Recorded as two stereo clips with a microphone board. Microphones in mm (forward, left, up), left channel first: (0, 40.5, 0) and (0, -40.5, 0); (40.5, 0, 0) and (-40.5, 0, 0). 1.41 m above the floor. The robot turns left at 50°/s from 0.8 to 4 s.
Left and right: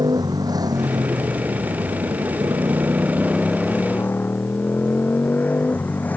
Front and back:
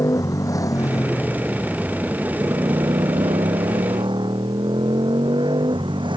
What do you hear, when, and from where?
0.0 s a motorcycle: 50° right; by 6.2 s 160° left